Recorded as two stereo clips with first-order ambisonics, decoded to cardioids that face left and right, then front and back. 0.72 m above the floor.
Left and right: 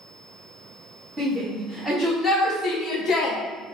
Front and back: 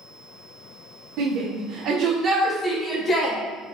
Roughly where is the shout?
Behind.